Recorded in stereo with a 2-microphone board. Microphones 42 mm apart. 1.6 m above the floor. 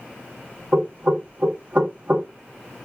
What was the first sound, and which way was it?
Knocking, 35° right (ahead or behind).